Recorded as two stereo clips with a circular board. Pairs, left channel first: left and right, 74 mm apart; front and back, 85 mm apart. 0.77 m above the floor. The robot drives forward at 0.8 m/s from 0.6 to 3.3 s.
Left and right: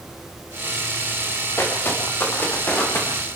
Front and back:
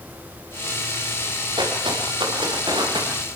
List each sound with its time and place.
1.6 s footsteps: 150° left, 7.5 m; by 3.1 s 155° left, 9.5 m